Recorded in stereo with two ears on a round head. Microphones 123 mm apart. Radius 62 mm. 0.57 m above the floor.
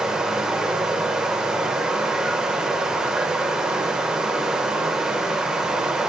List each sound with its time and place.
0.0 s running water: 5° right (ahead or behind), 0.7 m